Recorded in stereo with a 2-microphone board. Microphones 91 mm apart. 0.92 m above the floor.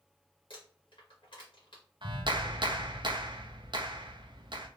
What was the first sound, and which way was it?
Crumpling, 65° left (ahead or behind).